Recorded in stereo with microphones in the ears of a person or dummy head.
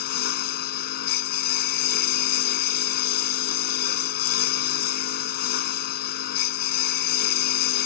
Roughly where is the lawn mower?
Left.